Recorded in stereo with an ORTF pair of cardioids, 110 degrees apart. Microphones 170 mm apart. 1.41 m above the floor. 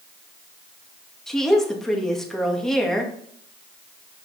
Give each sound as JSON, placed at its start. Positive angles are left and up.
{"t": 1.3, "sound": "a woman speaking", "azimuth_deg": 5, "distance_m": 2.0}